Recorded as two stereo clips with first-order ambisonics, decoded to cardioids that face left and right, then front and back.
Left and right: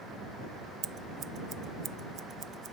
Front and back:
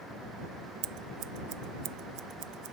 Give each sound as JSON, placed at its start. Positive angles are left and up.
{"t": 0.8, "sound": "scissors", "azimuth_deg": -150}